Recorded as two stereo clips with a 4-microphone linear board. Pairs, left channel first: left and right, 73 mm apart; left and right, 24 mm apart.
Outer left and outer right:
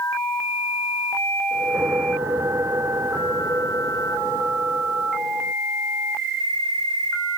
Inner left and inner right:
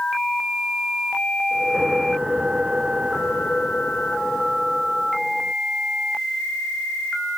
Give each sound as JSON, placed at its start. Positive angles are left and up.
{"t": 1.5, "sound": "a whoosh", "side_deg": -45}